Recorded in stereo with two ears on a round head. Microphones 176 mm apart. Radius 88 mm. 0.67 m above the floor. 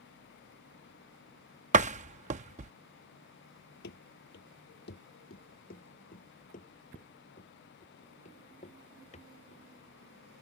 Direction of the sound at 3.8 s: 55° left (ahead or behind).